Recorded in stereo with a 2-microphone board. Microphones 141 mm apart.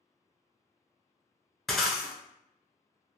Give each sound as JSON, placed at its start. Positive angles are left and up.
{"t": 1.7, "sound": "breaking glass", "side_deg": 0, "distance_m": 0.7}